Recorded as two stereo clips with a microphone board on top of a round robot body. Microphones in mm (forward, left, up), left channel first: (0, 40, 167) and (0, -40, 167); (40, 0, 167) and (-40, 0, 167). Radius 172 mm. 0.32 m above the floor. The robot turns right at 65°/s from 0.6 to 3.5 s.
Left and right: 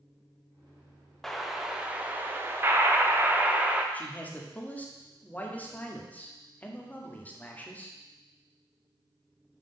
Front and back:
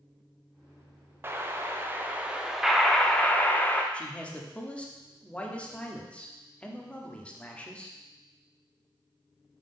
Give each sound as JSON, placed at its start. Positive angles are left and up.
{"t": 1.2, "sound": "an explosion", "azimuth_deg": 170, "distance_m": 1.0}
{"t": 3.9, "sound": "a man speaking", "azimuth_deg": 55, "distance_m": 1.2}